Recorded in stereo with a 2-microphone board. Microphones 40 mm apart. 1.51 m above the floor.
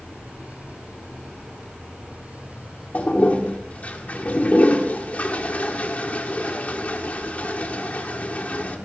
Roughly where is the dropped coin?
No dropped coin in this recording.